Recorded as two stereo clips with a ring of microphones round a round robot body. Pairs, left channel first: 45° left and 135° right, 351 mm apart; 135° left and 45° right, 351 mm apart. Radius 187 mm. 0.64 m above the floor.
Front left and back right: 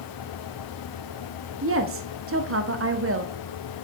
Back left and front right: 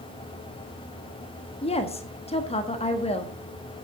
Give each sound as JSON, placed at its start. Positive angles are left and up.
{"t": 1.6, "sound": "a woman speaking", "azimuth_deg": -160, "distance_m": 1.3}